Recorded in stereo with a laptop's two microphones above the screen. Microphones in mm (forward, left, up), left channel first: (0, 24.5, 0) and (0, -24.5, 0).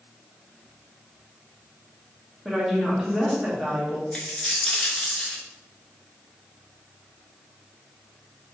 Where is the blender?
I don't hear a blender.